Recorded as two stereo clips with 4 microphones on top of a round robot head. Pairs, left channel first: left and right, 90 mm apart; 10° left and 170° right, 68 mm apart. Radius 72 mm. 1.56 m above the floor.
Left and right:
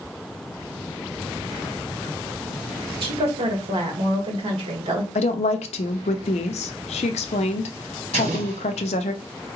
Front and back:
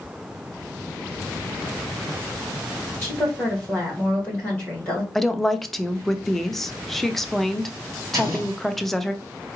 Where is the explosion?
105° right, 1.2 m.